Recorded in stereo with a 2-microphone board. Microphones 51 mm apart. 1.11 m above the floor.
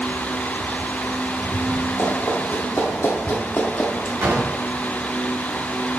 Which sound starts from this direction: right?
A drawer, at 4.2 s.